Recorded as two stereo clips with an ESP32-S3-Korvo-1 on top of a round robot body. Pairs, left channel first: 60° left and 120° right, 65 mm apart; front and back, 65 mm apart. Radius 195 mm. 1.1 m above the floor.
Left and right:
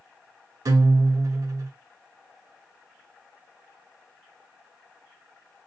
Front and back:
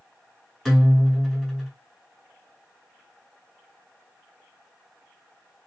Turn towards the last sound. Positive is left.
turn(degrees=-90)